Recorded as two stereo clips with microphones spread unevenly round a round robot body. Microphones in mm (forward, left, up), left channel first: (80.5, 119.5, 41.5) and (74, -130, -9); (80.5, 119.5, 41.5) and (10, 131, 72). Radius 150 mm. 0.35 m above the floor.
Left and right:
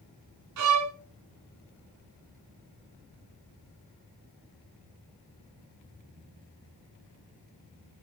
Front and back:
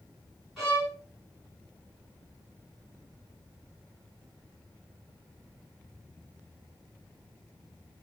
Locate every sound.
0.6 s a violin: 100° right, 1.4 m